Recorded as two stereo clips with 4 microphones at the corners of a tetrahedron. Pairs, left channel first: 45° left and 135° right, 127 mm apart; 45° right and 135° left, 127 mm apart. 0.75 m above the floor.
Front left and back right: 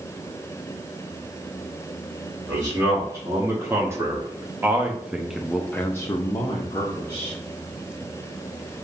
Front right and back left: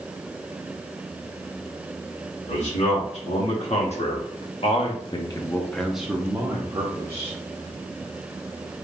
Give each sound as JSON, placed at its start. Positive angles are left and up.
{"t": 2.5, "sound": "a man speaking", "azimuth_deg": -70, "distance_m": 1.9}